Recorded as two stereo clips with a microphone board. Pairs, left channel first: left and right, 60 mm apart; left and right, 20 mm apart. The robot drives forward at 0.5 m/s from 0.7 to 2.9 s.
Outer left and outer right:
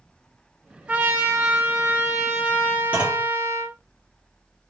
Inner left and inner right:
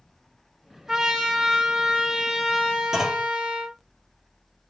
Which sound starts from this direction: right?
A trumpet, at 0.9 s.